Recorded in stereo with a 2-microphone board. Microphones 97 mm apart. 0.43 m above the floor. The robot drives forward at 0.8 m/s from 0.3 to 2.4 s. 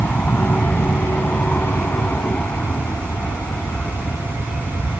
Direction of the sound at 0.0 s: 15° left (ahead or behind).